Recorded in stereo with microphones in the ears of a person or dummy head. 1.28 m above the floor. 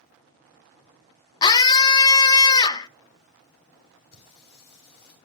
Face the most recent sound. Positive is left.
turn(degrees=55)  # may be behind; listen again after turning